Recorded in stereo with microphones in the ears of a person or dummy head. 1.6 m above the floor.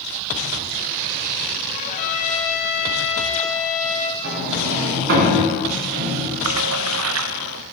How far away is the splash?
About 0.6 m.